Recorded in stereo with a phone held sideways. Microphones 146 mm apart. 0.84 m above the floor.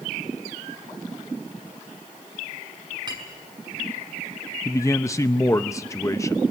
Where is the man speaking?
20° left (ahead or behind), 0.6 m.